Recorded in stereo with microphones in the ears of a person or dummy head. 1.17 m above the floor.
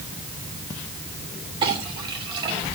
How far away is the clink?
About 2.5 m.